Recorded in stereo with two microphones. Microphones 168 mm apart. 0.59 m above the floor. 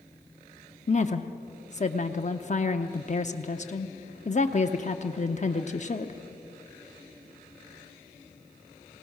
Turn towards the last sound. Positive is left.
turn(degrees=45)  # may be behind; listen again after turning